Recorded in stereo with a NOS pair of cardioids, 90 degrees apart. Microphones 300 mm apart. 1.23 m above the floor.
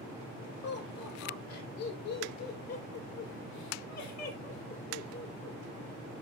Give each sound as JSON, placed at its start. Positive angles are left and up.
{"t": 0.6, "sound": "laughter", "azimuth_deg": 65, "distance_m": 6.5}